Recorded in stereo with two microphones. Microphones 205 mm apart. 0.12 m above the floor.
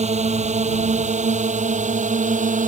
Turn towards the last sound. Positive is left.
turn(degrees=-40)  # may be behind; listen again after turning